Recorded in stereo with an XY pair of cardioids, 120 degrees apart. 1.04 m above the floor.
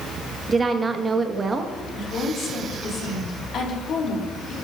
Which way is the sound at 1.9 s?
60° left.